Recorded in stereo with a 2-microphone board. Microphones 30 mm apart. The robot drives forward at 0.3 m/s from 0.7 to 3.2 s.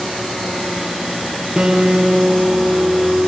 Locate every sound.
1.6 s a guitar: 30° right (ahead or behind), 4 m